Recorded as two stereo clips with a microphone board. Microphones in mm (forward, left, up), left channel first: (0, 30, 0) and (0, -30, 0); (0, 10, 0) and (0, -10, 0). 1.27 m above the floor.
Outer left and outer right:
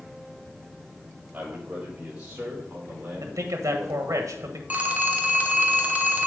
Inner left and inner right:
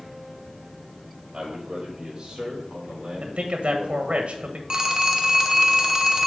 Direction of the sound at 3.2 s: 75° right (ahead or behind).